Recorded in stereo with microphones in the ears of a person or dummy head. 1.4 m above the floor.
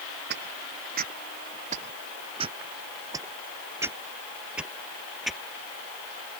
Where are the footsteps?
60° right (ahead or behind); by 5.4 s centre (ahead or behind).